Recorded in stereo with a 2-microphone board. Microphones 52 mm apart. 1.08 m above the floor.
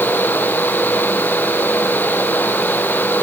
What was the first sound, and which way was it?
Only background noise.